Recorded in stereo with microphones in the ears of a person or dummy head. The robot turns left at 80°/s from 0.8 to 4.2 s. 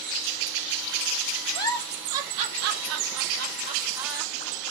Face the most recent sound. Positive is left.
turn(degrees=-5)  # may be behind; listen again after turning